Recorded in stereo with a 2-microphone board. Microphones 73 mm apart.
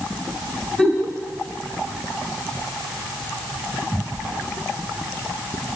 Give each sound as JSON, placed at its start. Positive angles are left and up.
{"t": 0.8, "sound": "a giggle", "side_deg": 10, "distance_m": 1.6}